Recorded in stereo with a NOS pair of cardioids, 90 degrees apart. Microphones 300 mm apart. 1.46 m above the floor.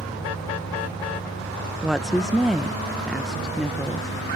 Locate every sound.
0.0 s an engine running: straight ahead
1.8 s a woman speaking: straight ahead